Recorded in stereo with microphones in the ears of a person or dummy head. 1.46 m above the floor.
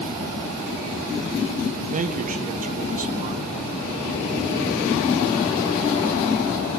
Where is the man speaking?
45° right (ahead or behind), 1.6 m.